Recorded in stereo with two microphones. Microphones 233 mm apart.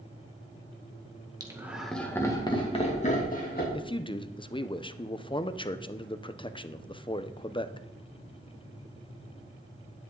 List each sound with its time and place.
1.4 s laughter: 15° right (ahead or behind), 1.8 m; by 3.6 s 40° left (ahead or behind), 3 m
3.7 s a man speaking: 20° left (ahead or behind), 0.6 m